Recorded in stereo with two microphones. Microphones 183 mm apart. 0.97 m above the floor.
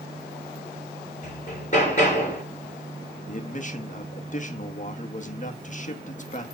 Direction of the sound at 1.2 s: 40° left (ahead or behind).